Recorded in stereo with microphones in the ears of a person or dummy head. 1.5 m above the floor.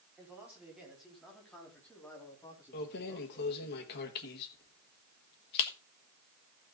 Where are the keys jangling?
55° left (ahead or behind), 1.5 m.